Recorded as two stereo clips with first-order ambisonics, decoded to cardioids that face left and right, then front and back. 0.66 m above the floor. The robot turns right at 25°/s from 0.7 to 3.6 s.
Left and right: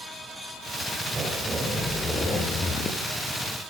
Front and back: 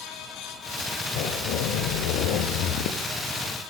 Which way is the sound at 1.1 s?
20° right.